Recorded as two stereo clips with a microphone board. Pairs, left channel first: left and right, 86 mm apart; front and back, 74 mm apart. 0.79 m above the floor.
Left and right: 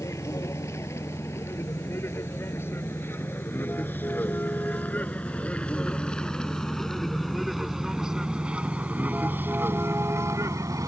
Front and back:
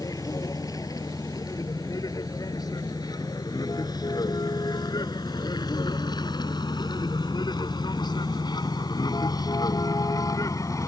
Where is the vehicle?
35° left; by 10.9 s 40° right.